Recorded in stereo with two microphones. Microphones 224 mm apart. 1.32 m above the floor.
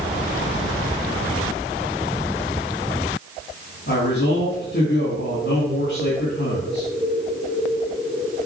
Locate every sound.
3.9 s a man speaking: 50° left (ahead or behind), 2 m